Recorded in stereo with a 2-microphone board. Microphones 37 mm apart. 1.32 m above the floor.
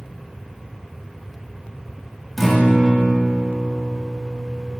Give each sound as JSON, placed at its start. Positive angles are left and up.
{"t": 2.4, "sound": "a guitar", "side_deg": 10, "distance_m": 1.7}